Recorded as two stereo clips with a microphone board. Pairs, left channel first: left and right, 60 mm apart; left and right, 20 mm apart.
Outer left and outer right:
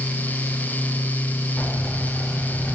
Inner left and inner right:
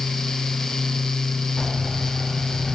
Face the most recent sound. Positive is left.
turn(degrees=20)  # may be behind; listen again after turning